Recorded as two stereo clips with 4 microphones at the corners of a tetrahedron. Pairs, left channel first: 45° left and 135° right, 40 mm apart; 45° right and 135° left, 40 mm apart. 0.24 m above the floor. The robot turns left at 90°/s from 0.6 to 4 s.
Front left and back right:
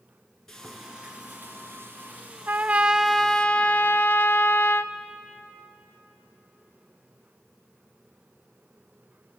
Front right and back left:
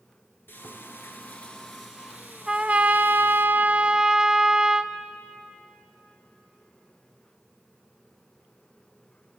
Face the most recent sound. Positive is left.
turn(degrees=65)